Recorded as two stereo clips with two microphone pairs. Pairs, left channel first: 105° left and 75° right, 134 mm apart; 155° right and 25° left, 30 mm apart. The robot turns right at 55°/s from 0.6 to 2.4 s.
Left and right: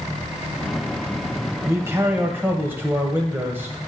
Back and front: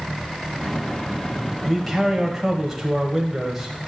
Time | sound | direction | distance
1.6 | a man speaking | 80° right | 1.0 m